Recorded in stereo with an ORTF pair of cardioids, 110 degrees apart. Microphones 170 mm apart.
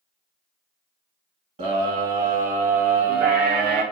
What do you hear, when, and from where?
1.6 s a scream: 45° right, 2.5 m; by 3.8 s 70° right, 1.9 m